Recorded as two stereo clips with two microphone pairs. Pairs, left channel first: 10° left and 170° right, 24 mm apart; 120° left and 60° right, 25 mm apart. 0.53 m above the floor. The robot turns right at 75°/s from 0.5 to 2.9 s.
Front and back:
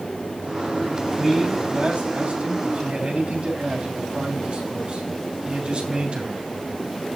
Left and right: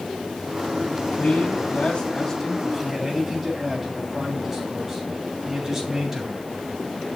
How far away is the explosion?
I don't hear an explosion.